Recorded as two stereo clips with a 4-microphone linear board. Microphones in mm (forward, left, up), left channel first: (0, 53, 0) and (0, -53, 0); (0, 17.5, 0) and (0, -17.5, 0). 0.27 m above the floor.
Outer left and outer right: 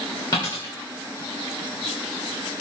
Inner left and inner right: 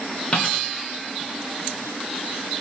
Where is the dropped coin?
40° left (ahead or behind), 7 m.